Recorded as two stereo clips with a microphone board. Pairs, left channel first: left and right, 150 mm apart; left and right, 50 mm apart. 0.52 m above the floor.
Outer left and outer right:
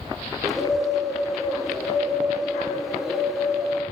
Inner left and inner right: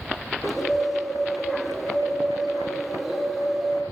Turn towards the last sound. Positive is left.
turn(degrees=0)  # may be behind; listen again after turning